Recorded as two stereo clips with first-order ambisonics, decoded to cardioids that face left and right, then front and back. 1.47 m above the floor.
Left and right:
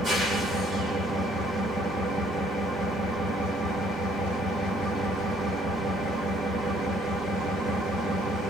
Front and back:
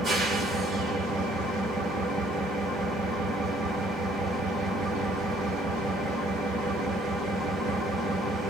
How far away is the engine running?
About 1.2 m.